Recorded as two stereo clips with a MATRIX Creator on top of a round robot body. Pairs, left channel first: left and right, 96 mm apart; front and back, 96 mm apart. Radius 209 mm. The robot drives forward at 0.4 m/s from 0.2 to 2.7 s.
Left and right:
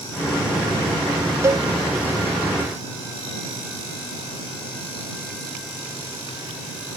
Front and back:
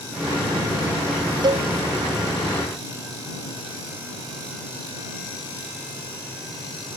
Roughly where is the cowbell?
Behind right.